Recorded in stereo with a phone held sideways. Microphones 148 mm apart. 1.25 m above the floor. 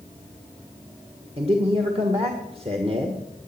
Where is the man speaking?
40° right (ahead or behind), 1.6 m.